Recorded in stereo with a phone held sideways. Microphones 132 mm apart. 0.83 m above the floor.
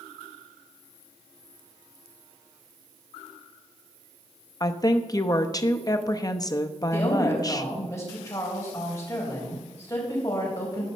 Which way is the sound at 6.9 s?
25° left (ahead or behind).